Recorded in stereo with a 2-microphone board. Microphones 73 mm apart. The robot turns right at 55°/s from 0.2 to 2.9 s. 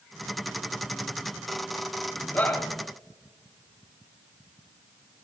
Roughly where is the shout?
Left.